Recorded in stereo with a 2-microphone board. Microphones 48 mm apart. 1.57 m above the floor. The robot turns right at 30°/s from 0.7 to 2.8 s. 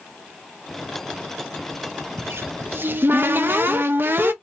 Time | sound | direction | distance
2.2 | a cupboard door | 65° right (ahead or behind) | 0.6 m